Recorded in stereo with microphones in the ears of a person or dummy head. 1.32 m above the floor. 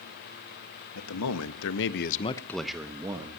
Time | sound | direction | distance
0.9 | a man speaking | 85° left | 1.7 m